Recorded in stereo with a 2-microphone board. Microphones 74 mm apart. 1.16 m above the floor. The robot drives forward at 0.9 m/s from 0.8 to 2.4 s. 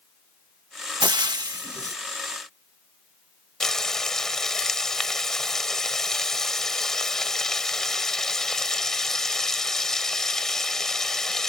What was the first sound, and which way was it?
Frying, 80° right.